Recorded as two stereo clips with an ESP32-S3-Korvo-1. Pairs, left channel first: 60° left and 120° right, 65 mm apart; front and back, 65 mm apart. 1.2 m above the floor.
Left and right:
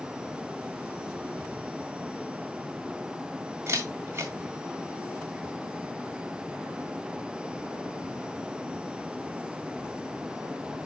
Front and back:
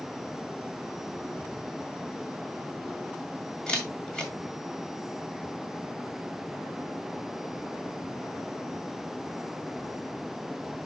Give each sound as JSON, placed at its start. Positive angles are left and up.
{"t": 3.7, "sound": "a camera shutter", "azimuth_deg": -75, "distance_m": 2.0}